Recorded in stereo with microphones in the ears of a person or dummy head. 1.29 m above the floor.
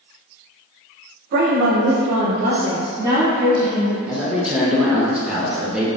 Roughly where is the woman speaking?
Right.